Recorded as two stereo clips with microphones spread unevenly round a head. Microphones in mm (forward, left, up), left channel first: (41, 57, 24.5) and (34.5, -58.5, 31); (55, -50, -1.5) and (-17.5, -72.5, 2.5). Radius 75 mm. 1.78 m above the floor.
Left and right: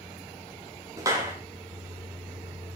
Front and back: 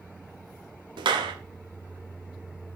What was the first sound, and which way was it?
A clap, 165° right.